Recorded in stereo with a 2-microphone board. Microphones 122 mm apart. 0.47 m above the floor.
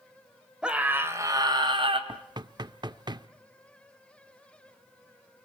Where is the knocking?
35° right (ahead or behind), 0.7 m.